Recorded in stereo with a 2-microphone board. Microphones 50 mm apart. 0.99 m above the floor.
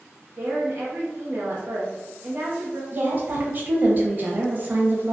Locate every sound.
0.4 s a woman speaking: 45° right (ahead or behind), 0.8 m
2.9 s a woman speaking: 40° right (ahead or behind), 0.7 m